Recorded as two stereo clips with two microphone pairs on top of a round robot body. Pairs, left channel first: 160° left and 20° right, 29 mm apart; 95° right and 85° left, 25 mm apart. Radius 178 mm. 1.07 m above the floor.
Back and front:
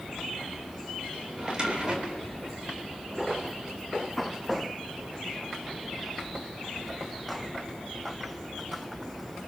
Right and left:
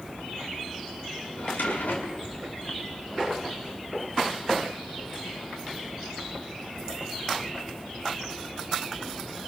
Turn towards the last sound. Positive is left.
turn(degrees=-80)